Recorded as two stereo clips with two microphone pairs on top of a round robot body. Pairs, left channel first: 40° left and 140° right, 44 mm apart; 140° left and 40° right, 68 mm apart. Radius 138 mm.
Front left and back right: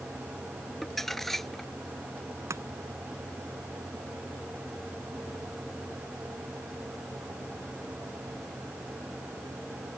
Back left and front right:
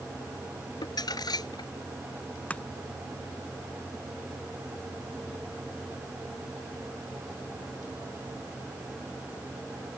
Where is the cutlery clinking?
No cutlery clinking in this recording.